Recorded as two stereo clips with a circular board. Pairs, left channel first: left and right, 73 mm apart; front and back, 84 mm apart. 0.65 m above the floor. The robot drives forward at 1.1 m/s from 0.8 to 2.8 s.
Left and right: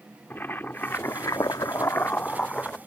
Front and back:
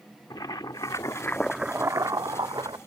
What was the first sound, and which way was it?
Boiling, 30° left.